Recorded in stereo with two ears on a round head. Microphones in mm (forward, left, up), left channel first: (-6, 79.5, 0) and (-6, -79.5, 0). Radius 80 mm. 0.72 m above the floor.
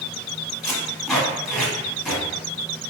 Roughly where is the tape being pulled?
Centre.